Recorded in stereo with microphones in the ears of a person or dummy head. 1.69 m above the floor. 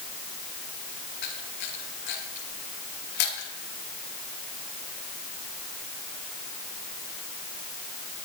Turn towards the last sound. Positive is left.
turn(degrees=60)  # may be behind; listen again after turning